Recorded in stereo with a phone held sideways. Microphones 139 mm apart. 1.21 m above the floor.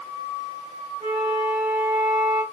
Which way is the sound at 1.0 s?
55° right (ahead or behind).